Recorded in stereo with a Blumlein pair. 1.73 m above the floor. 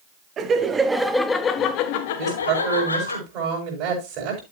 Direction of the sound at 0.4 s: 25° right.